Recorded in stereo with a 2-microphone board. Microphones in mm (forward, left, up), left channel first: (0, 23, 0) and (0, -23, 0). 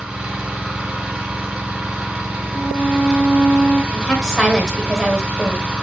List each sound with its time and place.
0.0 s an engine running: 15° right (ahead or behind), 1.6 m
2.5 s a violin: 65° left (ahead or behind), 1.3 m
3.9 s a woman speaking: 10° left (ahead or behind), 1.2 m